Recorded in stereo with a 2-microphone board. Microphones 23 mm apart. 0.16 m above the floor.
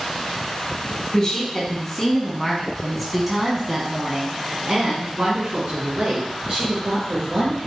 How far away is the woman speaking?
About 1.8 m.